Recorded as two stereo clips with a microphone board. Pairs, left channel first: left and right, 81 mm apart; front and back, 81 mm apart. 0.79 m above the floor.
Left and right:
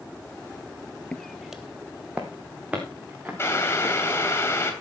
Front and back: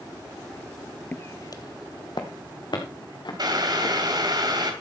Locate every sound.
1.1 s footsteps: 30° left, 0.8 m; by 4.4 s 20° right, 5.5 m
3.4 s boiling: 150° left, 2.5 m